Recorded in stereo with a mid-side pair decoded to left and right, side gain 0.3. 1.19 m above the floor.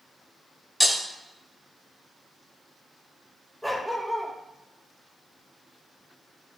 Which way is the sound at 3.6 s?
5° left.